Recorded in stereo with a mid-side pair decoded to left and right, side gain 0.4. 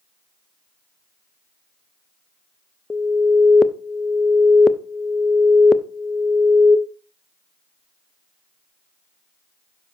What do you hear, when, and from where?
2.9 s an alarm: 30° left, 0.7 m